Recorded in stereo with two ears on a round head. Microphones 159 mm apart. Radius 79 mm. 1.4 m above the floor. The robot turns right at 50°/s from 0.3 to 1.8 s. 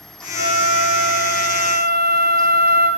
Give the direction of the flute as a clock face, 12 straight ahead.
10 o'clock.